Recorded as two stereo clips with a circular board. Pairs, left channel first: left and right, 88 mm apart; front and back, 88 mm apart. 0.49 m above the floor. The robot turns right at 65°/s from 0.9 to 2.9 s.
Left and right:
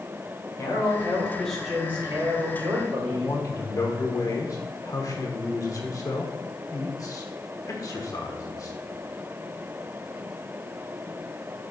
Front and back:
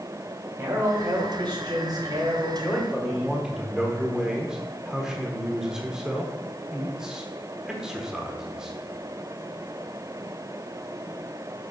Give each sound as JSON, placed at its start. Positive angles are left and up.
{"t": 0.6, "sound": "a man speaking", "azimuth_deg": 135, "distance_m": 2.0}
{"t": 3.1, "sound": "a man speaking", "azimuth_deg": 100, "distance_m": 1.1}